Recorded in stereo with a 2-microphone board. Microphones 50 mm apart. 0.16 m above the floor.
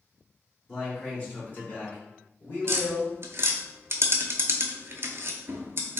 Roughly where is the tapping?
Right.